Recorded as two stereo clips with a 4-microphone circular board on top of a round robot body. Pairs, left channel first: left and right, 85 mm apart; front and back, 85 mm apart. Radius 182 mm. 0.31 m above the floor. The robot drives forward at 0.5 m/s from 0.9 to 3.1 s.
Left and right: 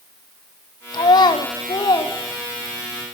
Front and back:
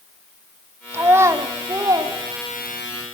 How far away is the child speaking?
About 1.9 m.